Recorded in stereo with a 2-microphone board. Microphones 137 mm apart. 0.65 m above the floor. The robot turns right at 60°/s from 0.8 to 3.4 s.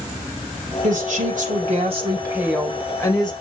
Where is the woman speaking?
110° right, 3 m; by 3.3 s 40° left, 3 m.